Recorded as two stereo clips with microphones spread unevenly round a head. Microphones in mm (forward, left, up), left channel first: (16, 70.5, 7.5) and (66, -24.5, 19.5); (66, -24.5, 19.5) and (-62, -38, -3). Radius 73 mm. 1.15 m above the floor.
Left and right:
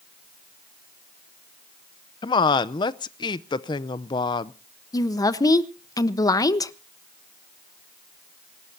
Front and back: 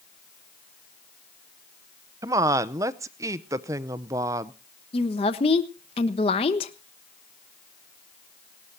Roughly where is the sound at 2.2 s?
Behind left.